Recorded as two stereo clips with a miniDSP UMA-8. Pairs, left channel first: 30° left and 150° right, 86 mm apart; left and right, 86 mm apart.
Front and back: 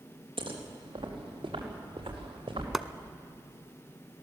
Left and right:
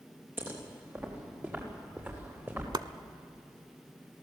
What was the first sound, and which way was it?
Footsteps, 155° right.